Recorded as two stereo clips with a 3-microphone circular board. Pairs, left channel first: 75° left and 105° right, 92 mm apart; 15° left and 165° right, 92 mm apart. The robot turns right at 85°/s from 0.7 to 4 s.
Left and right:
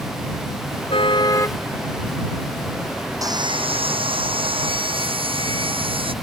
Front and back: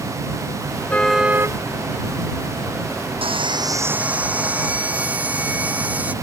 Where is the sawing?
155° right; by 6.1 s 90° right.